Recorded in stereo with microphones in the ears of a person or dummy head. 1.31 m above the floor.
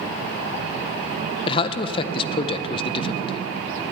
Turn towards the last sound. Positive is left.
turn(degrees=30)  # may be behind; listen again after turning